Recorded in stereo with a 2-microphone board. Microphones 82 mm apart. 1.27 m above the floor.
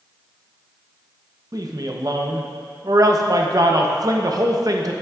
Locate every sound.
1.5 s a man speaking: 50° right (ahead or behind), 0.8 m